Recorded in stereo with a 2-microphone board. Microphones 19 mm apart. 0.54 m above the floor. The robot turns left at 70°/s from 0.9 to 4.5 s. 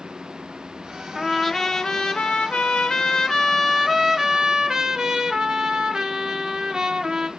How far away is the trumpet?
About 0.5 m.